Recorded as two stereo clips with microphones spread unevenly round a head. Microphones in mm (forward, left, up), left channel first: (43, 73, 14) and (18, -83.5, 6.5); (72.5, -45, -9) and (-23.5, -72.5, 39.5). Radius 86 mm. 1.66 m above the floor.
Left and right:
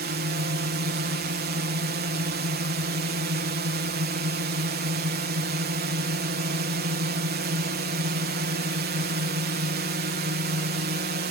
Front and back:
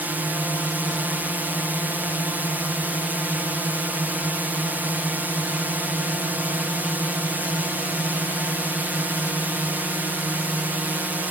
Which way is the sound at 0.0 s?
80° right.